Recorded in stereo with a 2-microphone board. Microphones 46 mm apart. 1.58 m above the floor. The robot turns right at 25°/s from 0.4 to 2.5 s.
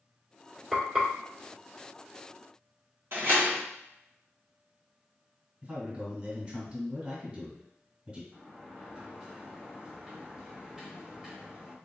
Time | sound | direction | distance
0.7 | frying | 20° right (ahead or behind) | 2 m
3.1 | a door slam | 60° right (ahead or behind) | 1.3 m
5.6 | a man speaking | 35° right (ahead or behind) | 2 m
8.3 | a sliding door | 20° right (ahead or behind) | 1.1 m